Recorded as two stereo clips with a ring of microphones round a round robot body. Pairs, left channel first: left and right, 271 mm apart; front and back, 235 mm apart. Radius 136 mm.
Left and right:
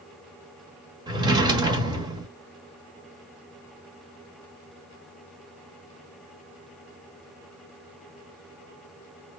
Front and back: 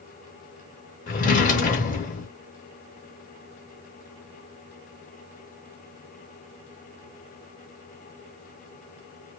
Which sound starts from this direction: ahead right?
A drawer, at 1.1 s.